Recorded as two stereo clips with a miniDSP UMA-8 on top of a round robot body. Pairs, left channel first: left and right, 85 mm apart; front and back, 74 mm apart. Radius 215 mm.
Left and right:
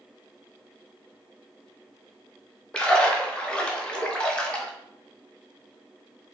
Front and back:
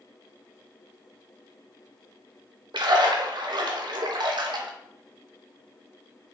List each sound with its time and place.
2.7 s a splash: 170° left, 0.7 m